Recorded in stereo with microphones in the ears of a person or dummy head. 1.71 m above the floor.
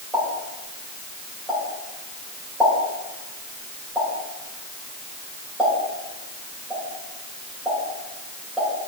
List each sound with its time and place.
0.1 s a pop: 10° right (ahead or behind), 2 m